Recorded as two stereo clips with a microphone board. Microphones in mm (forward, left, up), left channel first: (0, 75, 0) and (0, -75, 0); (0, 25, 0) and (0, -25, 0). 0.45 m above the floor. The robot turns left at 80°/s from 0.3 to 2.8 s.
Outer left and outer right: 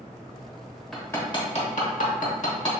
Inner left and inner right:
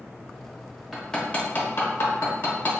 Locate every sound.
0.9 s hammering: centre (ahead or behind), 0.9 m; by 2.7 s 35° left (ahead or behind), 0.9 m